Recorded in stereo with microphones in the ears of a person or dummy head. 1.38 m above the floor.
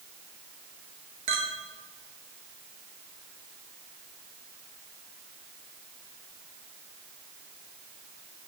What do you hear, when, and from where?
1.3 s a clink: 35° right (ahead or behind), 0.9 m